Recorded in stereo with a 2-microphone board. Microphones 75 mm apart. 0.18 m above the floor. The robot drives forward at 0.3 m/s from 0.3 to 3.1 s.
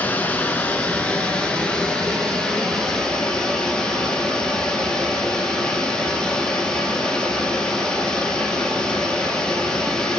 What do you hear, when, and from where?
0.0 s running water: 25° left (ahead or behind), 0.8 m; by 10.2 s 10° left (ahead or behind), 1.5 m